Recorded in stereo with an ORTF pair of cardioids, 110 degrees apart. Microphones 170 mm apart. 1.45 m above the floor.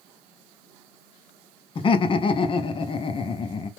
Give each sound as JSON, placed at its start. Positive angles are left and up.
{"t": 1.8, "sound": "laughter", "azimuth_deg": 30, "distance_m": 0.6}